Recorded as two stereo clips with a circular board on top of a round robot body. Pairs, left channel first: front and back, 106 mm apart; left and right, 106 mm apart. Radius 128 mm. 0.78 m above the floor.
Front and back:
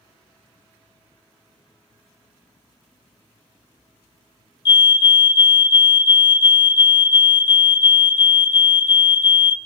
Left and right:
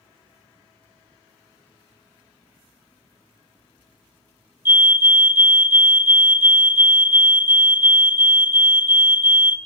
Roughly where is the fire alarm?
Ahead right.